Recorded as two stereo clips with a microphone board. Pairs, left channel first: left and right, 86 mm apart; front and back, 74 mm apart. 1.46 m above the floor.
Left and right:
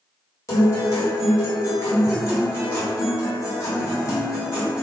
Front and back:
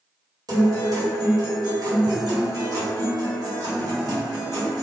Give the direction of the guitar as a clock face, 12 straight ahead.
7 o'clock.